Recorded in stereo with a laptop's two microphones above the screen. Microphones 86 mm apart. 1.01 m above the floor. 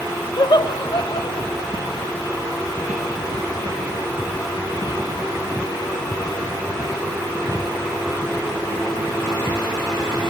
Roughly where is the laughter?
Left.